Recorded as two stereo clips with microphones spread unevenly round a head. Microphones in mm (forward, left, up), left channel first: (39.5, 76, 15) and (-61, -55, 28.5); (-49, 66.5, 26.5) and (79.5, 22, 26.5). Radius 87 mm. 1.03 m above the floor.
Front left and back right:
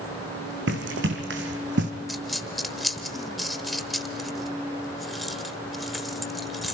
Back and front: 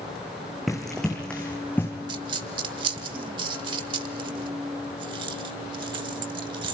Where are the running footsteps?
110° right, 2.5 m; by 1.9 s 120° right, 2 m.